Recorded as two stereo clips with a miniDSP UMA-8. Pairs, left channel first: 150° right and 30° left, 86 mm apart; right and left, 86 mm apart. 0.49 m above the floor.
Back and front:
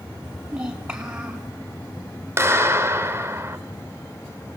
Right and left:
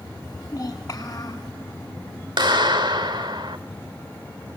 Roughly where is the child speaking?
Ahead right.